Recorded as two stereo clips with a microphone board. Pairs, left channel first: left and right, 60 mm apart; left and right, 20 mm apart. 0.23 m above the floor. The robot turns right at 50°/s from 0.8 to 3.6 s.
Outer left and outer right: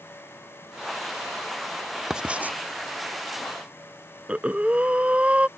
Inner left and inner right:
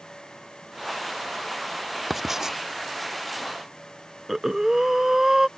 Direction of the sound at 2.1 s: 10° right (ahead or behind).